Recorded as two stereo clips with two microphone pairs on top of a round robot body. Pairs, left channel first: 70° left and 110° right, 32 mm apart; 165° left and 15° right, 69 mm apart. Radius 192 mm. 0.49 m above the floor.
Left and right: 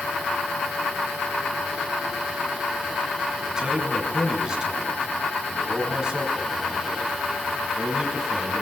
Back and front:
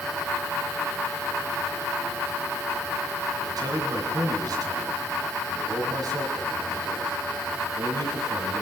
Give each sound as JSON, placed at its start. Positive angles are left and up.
{"t": 3.5, "sound": "a man speaking", "azimuth_deg": -40, "distance_m": 7.5}